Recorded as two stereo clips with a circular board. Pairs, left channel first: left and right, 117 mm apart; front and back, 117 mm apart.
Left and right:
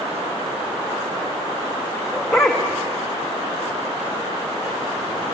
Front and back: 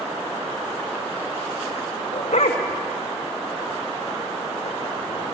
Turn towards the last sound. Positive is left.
turn(degrees=0)